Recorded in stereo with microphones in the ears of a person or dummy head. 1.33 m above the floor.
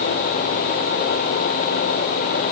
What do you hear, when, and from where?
Only background noise.